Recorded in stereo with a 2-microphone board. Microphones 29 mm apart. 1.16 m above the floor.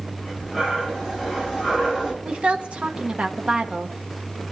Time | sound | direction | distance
0.2 | breathing | 5° right (ahead or behind) | 3.5 m
2.2 | a woman speaking | 45° right (ahead or behind) | 1.1 m